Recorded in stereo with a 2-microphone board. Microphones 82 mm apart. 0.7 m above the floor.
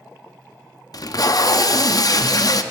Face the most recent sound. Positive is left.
turn(degrees=50)  # may be behind; listen again after turning